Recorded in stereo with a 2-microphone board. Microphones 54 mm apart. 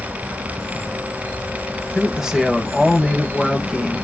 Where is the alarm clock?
I don't hear an alarm clock.